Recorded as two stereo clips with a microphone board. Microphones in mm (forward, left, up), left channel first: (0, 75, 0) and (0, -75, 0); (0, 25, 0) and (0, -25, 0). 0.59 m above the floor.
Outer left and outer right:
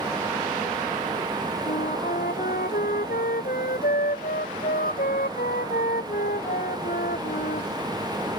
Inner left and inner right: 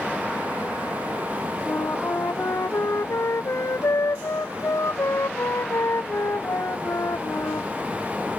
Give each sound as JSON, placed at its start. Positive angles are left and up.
{"t": 1.7, "sound": "a flute", "side_deg": 80}